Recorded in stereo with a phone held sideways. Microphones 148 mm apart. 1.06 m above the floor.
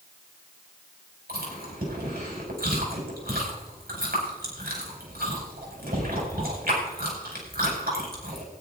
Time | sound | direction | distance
1.3 | chewing | 85° right | 5 m